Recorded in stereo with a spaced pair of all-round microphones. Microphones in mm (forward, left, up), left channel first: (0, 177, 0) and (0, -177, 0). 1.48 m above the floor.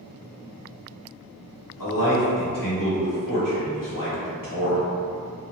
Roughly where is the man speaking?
Left.